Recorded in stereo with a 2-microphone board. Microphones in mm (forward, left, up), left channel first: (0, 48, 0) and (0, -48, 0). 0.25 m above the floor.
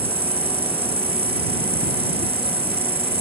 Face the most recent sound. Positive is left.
turn(degrees=-85)